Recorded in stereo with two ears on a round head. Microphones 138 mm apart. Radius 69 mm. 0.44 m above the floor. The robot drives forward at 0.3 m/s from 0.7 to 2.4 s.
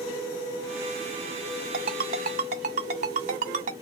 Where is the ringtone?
60° right (ahead or behind), 1.2 m; by 3.7 s 55° right (ahead or behind), 1.3 m.